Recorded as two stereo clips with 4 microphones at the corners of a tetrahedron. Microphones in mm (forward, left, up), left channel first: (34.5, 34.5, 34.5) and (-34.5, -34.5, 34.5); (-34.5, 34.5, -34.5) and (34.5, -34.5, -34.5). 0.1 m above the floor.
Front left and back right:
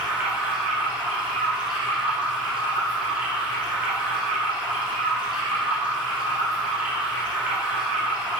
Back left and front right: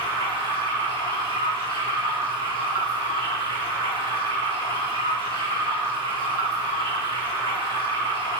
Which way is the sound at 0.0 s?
145° left.